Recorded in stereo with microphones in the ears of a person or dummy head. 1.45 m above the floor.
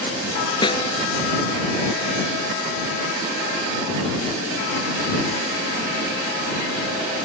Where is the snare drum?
25° left (ahead or behind).